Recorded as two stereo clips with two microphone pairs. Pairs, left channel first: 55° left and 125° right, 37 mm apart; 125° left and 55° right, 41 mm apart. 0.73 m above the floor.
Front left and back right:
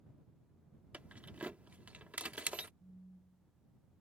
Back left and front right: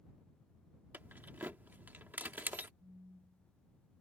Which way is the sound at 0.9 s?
85° right.